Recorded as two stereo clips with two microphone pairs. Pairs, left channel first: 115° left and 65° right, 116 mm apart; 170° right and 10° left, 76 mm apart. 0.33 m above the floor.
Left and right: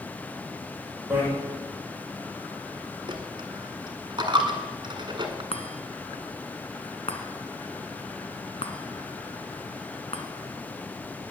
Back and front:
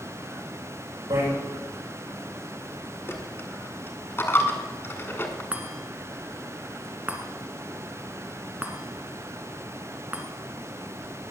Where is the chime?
85° left, 1.5 m.